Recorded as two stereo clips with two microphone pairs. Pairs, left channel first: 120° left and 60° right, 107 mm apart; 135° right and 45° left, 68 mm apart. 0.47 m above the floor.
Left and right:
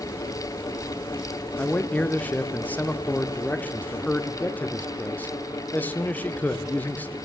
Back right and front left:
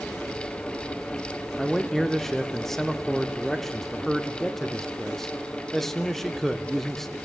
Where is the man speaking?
150° left, 0.7 m.